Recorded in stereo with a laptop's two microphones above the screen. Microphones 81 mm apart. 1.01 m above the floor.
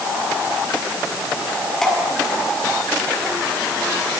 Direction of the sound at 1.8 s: 5° left (ahead or behind).